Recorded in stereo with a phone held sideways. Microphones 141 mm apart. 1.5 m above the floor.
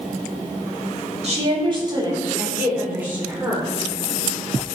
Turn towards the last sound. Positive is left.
turn(degrees=-5)  # may be behind; listen again after turning